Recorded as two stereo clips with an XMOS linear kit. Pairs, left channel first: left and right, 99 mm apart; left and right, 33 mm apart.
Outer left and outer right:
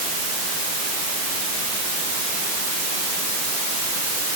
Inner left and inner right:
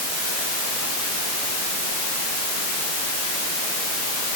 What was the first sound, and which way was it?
Only background noise.